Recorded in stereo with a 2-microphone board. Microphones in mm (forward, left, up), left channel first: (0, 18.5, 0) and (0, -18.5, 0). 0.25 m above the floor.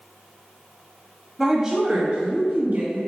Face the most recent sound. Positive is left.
turn(degrees=-55)  # may be behind; listen again after turning